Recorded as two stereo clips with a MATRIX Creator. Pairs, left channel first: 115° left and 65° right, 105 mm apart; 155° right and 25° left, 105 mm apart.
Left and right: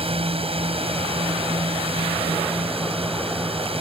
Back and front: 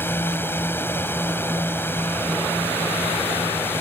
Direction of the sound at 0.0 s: 90° right.